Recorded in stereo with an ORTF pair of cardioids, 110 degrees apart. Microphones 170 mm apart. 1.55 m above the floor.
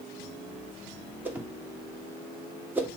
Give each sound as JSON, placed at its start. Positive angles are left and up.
{"t": 1.2, "sound": "a whoosh", "azimuth_deg": -10, "distance_m": 1.2}